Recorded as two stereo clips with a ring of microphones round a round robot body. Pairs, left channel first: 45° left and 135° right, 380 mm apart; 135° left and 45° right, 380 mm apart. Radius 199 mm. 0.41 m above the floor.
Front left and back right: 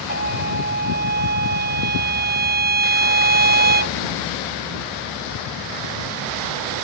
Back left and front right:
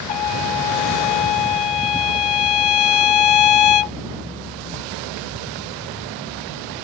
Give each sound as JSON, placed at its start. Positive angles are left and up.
{"t": 0.1, "sound": "a trumpet", "azimuth_deg": 160}